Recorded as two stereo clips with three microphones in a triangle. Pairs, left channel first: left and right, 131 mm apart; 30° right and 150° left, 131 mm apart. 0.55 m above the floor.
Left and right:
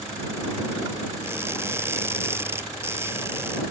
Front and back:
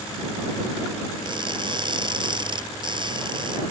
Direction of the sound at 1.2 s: 160° right.